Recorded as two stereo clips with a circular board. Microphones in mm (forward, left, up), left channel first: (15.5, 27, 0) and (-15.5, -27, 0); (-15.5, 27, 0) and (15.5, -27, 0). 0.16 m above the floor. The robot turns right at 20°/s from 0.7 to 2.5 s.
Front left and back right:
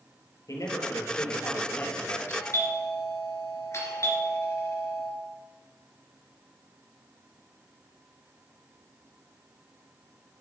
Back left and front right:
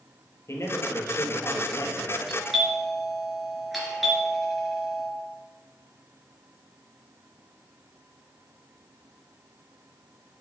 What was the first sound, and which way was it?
A man speaking, 85° left.